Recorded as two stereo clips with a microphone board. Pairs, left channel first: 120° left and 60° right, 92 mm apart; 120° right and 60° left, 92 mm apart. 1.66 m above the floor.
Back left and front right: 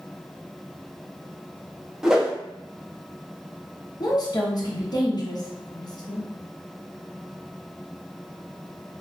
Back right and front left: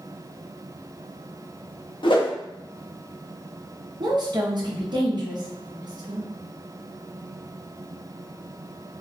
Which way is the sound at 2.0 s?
145° right.